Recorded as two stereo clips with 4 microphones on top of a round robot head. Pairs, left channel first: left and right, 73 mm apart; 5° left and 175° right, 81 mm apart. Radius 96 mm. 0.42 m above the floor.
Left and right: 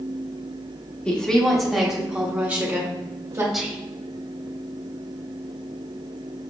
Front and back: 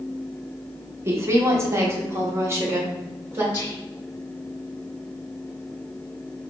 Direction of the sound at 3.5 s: 10° right.